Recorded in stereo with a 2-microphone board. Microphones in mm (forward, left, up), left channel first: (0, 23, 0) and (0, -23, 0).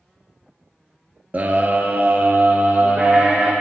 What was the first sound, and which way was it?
A scream, 40° right (ahead or behind).